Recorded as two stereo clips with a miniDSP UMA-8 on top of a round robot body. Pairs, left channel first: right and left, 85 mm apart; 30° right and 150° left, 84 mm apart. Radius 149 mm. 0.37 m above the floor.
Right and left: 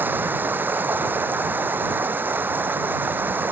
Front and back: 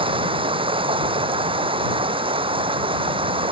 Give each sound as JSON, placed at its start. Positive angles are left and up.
{"t": 0.0, "sound": "running water", "azimuth_deg": 160}